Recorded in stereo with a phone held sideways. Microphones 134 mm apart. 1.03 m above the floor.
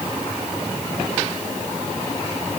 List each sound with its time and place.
Only background noise.